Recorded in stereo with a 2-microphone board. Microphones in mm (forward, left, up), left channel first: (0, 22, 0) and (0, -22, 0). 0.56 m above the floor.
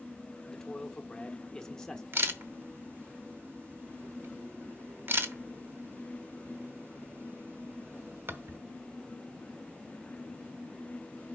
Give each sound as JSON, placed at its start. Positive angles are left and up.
{"t": 0.5, "sound": "a man speaking", "side_deg": 15, "distance_m": 1.1}
{"t": 2.1, "sound": "a camera shutter", "side_deg": -55, "distance_m": 1.0}